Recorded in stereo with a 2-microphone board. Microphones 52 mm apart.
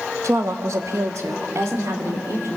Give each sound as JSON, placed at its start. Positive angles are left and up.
{"t": 0.2, "sound": "a woman speaking", "side_deg": -65, "distance_m": 1.2}